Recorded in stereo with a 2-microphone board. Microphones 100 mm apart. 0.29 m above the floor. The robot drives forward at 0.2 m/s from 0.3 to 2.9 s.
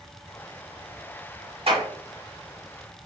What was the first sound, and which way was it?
A clap, 60° right (ahead or behind).